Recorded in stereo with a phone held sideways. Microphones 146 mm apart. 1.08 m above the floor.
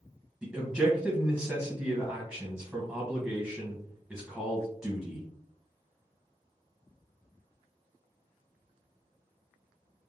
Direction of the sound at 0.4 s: 5° right (ahead or behind).